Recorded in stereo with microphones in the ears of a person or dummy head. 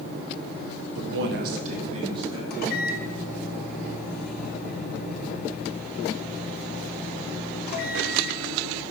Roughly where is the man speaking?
Right.